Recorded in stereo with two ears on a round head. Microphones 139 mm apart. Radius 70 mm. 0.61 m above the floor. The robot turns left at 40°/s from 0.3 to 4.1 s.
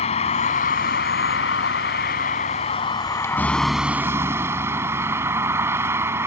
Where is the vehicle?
135° left; by 6.3 s 15° right.